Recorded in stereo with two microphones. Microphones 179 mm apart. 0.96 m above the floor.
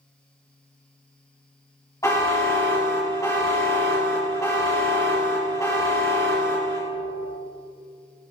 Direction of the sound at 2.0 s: 20° left (ahead or behind).